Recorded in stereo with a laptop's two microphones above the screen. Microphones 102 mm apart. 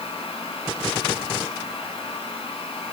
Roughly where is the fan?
Left.